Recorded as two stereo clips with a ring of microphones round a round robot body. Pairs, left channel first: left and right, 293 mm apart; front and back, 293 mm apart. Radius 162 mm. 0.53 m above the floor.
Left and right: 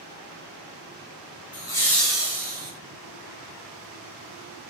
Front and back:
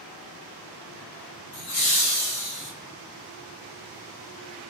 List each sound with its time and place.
1.5 s laughter: 20° left, 1.8 m; by 2.7 s 20° right, 1.9 m